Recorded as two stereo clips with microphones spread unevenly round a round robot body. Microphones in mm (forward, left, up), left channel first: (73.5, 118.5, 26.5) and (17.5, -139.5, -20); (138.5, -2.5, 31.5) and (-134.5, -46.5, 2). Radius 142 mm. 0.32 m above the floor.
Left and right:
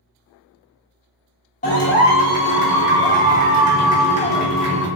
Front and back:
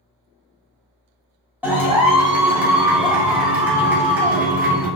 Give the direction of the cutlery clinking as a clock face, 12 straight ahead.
I don't hear cutlery clinking.